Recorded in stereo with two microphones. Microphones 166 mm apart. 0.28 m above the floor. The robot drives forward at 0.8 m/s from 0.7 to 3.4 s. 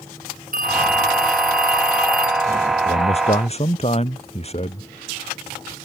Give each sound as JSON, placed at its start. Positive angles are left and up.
{"t": 0.5, "sound": "a phone ringing", "side_deg": -60}
{"t": 2.9, "sound": "a man speaking", "side_deg": 40}